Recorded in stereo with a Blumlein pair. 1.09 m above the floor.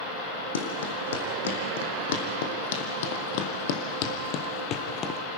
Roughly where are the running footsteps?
Ahead left.